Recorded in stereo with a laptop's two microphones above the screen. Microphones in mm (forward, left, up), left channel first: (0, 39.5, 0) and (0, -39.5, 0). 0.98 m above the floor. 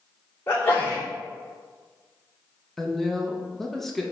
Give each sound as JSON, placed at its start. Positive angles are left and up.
{"t": 0.5, "sound": "a sneeze", "side_deg": 30, "distance_m": 2.5}
{"t": 2.8, "sound": "a woman speaking", "side_deg": 5, "distance_m": 1.0}